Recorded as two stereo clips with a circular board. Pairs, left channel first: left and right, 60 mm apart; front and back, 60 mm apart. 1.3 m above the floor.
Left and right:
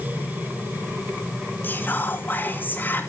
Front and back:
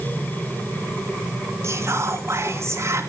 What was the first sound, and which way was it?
Whispering, 145° left.